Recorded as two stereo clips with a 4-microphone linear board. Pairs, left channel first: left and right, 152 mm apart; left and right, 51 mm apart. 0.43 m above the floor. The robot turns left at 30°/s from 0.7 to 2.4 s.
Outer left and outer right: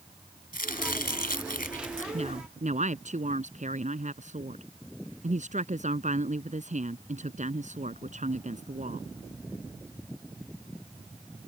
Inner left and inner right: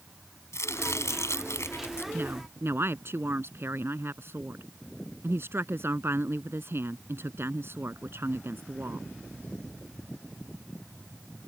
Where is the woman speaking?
45° right (ahead or behind); by 9.1 s 55° right (ahead or behind).